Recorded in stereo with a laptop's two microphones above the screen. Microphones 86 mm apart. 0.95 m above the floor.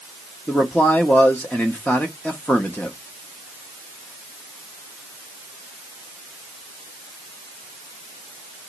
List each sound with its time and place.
0.5 s a man speaking: 20° left (ahead or behind), 0.9 m